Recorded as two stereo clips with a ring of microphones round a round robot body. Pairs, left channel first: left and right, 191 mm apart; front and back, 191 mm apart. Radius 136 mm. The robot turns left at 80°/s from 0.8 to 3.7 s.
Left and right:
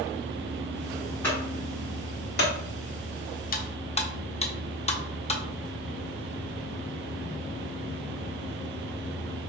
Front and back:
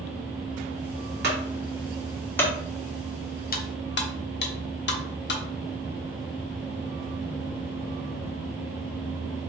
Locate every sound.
1.2 s a clunk: 170° left, 1.5 m; by 2.5 s 65° left, 1.5 m
3.5 s cutlery clinking: 45° left, 0.7 m; by 5.4 s 30° left, 0.7 m